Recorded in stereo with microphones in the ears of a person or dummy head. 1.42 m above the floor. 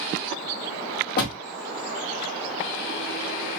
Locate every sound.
1.2 s a door slam: 50° left (ahead or behind), 1.2 m